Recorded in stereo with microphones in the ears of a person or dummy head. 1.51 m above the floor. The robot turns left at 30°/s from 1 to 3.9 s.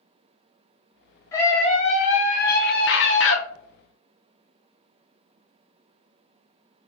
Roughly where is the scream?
Behind left.